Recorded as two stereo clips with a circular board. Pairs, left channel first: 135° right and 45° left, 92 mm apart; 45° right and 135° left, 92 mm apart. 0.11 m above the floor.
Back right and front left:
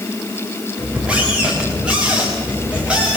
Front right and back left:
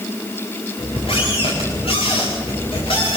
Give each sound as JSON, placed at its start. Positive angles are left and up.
{"t": 0.8, "sound": "a squeak", "azimuth_deg": -35, "distance_m": 6.0}